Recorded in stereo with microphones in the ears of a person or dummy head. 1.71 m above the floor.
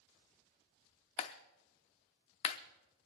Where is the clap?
35° left (ahead or behind), 0.6 m.